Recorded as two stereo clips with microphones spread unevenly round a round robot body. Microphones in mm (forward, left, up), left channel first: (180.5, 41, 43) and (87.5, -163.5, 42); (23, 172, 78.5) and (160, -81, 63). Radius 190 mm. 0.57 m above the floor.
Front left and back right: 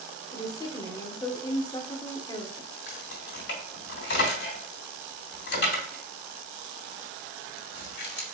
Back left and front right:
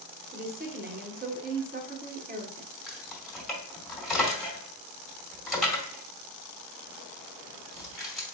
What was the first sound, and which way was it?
A woman speaking, 5° right.